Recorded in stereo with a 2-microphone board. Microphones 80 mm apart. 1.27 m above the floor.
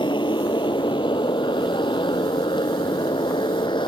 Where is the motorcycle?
80° left; by 3.9 s 85° left.